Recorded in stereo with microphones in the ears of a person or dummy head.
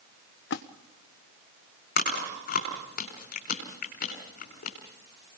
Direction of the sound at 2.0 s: 50° left (ahead or behind).